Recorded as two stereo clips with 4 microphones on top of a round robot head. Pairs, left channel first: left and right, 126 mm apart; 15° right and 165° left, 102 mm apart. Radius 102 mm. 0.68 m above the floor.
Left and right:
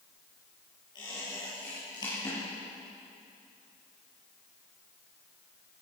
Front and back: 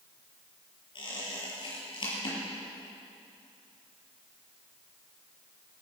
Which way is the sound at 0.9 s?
25° left.